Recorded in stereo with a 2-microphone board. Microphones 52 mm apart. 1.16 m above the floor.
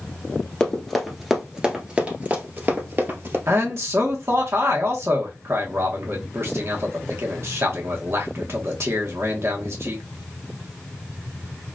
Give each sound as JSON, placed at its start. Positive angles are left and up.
{"t": 0.6, "sound": "running footsteps", "side_deg": 10, "distance_m": 1.4}
{"t": 3.5, "sound": "a man speaking", "side_deg": -55, "distance_m": 1.3}